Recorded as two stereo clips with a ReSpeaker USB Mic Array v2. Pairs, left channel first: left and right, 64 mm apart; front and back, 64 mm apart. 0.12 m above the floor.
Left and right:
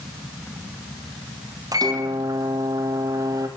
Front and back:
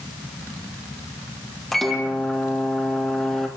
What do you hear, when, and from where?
1.7 s a microwave: 85° right, 3.5 m